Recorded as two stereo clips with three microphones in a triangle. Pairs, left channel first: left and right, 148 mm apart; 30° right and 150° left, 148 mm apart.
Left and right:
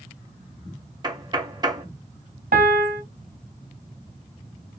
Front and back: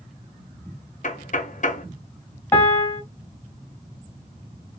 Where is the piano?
105° right, 0.9 m.